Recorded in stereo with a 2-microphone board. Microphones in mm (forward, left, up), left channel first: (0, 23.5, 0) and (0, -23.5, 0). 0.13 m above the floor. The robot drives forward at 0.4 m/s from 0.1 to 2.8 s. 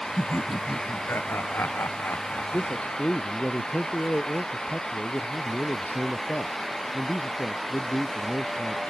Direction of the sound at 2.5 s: 35° left (ahead or behind).